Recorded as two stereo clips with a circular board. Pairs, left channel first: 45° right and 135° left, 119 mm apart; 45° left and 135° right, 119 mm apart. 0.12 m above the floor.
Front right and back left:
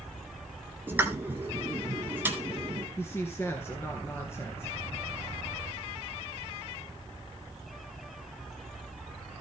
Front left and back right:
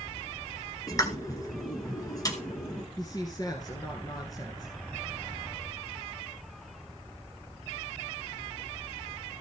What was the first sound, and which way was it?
A pop, 75° left.